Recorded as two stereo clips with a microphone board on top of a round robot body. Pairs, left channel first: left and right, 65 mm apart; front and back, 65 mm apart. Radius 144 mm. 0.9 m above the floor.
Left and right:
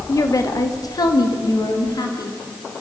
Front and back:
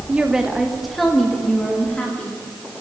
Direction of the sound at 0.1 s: 115° left.